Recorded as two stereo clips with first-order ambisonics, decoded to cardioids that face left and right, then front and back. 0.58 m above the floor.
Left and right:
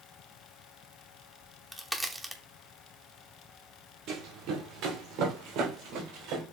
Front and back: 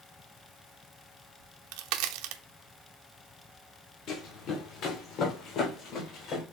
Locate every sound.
1.4 s a crack: straight behind, 0.7 m
4.1 s running footsteps: 40° right, 2 m; by 6.4 s 45° right, 3.5 m